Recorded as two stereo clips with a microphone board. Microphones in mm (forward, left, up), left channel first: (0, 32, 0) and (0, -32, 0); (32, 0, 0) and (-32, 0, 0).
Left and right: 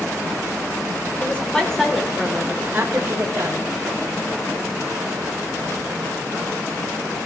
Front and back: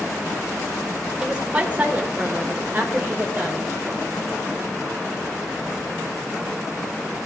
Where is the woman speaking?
125° left, 1.2 m; by 3.6 s 120° right, 1.8 m.